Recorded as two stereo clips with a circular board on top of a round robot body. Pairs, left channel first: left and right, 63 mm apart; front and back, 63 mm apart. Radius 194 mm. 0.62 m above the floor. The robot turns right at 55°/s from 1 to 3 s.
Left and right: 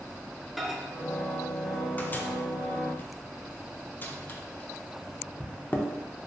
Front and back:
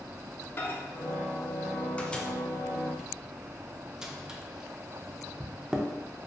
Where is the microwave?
Straight ahead, 0.6 m; by 5.9 s 110° left, 0.6 m.